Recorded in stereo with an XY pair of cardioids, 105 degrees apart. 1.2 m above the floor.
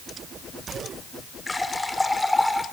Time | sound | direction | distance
1.5 | a running tap | 10° left | 2 m